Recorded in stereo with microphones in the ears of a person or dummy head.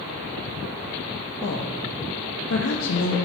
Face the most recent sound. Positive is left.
turn(degrees=65)  # may be behind; listen again after turning